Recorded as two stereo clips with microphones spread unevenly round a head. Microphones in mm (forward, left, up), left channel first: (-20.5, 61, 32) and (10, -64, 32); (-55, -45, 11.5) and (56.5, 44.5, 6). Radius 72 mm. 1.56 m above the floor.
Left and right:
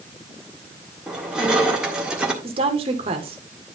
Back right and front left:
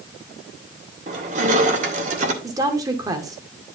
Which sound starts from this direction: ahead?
Crushing, at 1.1 s.